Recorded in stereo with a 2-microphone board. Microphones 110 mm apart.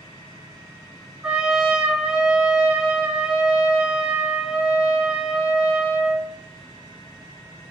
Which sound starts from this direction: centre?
A trumpet, at 1.2 s.